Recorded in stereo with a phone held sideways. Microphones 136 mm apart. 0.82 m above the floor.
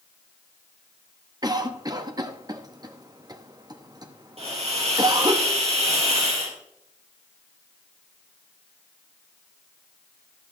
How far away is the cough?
About 1.0 m.